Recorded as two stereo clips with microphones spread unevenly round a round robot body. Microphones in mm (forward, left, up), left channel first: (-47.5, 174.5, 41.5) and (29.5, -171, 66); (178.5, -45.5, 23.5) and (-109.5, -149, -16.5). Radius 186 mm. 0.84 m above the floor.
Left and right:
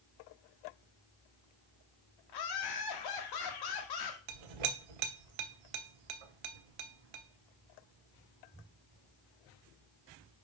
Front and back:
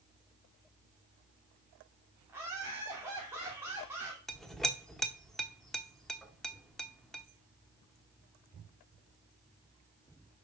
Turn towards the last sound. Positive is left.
turn(degrees=-70)